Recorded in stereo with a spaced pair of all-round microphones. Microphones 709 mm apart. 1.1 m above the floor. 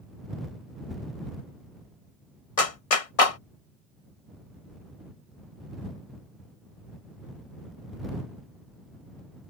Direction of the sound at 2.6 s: 50° left (ahead or behind).